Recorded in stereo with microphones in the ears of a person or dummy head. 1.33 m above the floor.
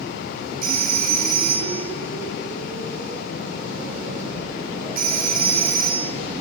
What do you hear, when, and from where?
0.6 s a phone ringing: 50° right (ahead or behind), 3 m